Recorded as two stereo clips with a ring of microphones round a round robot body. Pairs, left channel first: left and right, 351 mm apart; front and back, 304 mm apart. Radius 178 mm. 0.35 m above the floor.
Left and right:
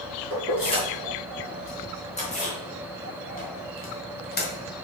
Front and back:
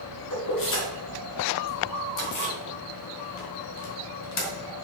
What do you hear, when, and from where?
0.3 s keys jangling: 15° left, 4.5 m; by 4.5 s 30° left, 2 m